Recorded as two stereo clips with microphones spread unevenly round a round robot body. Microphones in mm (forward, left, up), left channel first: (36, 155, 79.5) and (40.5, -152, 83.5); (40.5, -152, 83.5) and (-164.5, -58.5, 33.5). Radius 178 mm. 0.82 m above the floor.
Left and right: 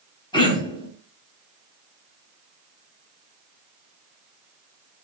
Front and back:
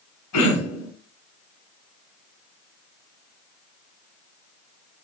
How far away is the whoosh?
No whoosh in this recording.